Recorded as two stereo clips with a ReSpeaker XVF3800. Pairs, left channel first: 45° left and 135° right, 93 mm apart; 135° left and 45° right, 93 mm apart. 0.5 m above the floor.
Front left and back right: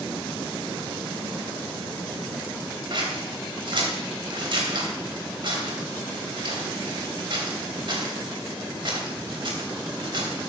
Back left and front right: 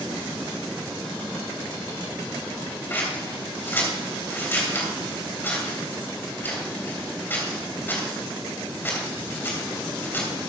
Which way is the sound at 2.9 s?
160° right.